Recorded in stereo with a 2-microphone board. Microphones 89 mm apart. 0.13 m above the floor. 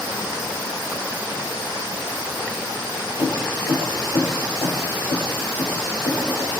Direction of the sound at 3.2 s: 65° left (ahead or behind).